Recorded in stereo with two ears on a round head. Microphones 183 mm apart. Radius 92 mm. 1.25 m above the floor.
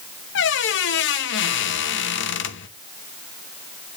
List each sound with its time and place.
0.3 s a squeak: 65° left (ahead or behind), 1.0 m